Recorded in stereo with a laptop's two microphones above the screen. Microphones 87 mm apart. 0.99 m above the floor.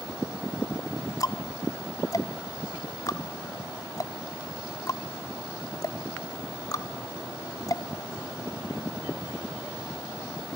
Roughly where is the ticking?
Left.